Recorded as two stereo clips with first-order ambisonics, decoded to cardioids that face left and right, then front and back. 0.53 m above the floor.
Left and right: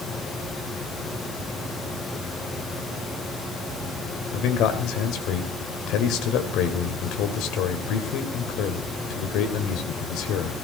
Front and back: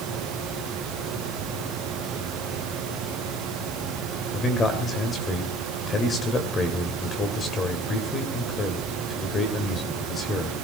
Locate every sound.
4.3 s a man speaking: 65° left, 2.5 m